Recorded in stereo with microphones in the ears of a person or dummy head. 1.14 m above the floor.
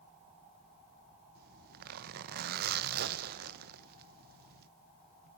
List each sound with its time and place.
1.4 s a zipper: 55° right (ahead or behind), 1.1 m